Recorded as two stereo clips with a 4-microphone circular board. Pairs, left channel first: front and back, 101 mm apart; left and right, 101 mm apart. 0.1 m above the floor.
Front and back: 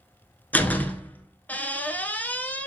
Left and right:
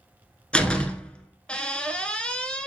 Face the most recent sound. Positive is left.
turn(degrees=35)